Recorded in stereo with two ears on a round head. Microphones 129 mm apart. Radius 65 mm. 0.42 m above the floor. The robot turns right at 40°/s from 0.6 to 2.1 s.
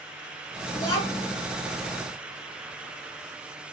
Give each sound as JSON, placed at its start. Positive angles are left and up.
{"t": 0.7, "sound": "a child speaking", "side_deg": 20, "distance_m": 3.0}